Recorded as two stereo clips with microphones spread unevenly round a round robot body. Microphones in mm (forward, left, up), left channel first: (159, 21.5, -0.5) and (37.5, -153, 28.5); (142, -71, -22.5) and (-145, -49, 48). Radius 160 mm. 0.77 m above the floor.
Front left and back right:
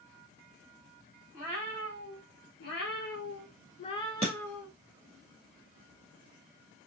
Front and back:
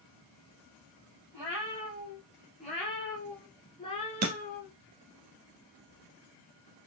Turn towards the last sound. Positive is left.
turn(degrees=150)